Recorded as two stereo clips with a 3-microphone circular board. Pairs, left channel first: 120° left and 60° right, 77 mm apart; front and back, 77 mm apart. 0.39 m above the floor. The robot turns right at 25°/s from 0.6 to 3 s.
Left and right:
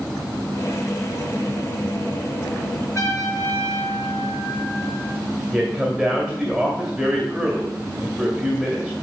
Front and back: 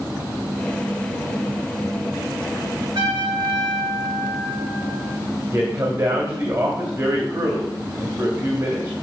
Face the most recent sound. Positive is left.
turn(degrees=-155)